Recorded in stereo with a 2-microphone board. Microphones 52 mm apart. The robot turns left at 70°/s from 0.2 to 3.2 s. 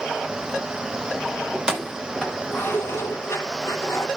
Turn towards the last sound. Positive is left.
turn(degrees=60)  # may be behind; listen again after turning